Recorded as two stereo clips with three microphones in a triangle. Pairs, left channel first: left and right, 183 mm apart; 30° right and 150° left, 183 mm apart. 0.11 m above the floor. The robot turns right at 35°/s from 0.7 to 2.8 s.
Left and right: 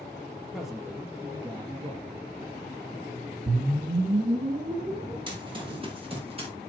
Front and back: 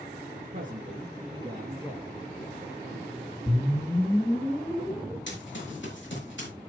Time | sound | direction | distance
0.5 | a man speaking | 175° right | 2.5 m
3.5 | a whoosh | 110° right | 2.0 m
5.3 | running footsteps | 25° right | 5.5 m